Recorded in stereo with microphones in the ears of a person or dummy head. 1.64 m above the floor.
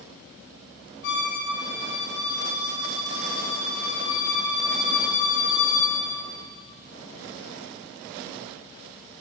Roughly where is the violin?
Left.